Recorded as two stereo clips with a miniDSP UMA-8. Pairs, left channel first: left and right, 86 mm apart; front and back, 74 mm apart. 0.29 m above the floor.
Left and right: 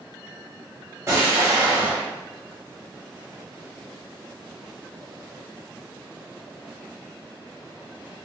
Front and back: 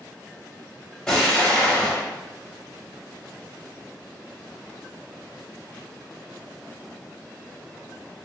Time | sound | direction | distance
1.1 | an explosion | 75° right | 1.1 m